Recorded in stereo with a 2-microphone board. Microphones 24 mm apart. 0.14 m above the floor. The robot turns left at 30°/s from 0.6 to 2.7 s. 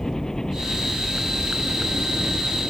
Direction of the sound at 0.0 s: 25° left.